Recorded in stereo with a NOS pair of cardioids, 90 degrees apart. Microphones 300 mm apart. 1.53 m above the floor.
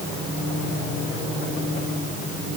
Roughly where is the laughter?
I don't hear laughter.